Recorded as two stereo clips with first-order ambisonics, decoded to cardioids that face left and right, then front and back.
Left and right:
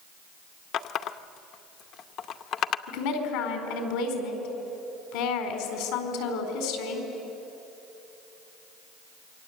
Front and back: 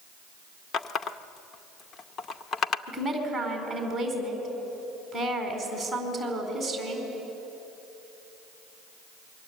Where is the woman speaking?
90° left, 4.5 m.